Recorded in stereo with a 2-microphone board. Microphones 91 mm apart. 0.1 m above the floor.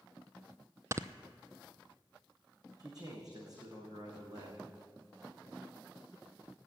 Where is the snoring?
35° right (ahead or behind), 0.5 m.